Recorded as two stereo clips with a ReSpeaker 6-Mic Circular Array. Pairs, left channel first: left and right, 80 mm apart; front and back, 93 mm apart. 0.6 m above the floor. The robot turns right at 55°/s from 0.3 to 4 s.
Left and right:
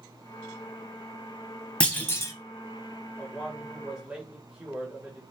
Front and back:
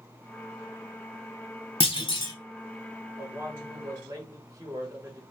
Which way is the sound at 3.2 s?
150° left.